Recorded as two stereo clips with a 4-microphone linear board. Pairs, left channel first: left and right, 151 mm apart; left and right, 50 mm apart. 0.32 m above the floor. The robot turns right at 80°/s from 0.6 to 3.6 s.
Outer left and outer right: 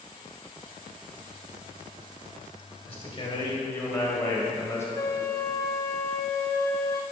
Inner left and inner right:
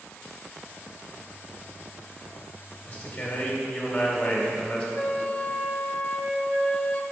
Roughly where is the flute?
Left.